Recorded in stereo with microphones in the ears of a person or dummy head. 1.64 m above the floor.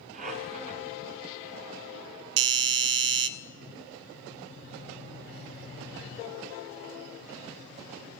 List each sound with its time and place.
0.1 s a squeak: 40° right (ahead or behind), 2.5 m
2.4 s a doorbell: 50° right (ahead or behind), 0.6 m